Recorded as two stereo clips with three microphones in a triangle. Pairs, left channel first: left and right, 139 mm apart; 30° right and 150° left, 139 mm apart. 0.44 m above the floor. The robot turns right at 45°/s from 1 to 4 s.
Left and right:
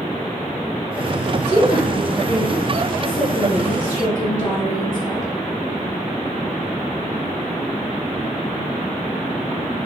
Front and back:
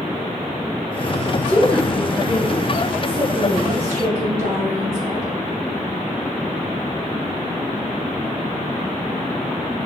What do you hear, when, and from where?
1.3 s a woman speaking: 25° left, 1.9 m; by 5.3 s 145° left, 1.9 m